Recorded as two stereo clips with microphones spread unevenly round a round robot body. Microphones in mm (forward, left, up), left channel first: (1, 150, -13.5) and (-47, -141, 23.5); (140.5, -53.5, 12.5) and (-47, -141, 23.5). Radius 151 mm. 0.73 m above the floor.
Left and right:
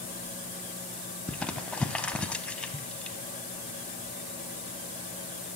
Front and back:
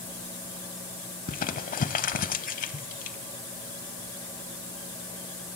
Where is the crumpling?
10° right, 0.7 m.